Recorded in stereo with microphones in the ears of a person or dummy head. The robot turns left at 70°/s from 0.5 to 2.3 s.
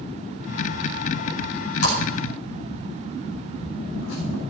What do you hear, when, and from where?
1.8 s a splash: 55° left (ahead or behind), 5.5 m; by 4.4 s 85° left, 5.5 m